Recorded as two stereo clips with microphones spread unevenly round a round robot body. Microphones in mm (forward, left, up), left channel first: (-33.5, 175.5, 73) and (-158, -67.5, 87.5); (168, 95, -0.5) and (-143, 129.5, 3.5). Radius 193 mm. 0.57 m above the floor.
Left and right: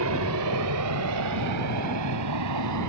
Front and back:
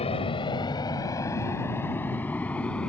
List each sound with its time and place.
0.0 s an aircraft: 80° right; by 2.9 s 95° right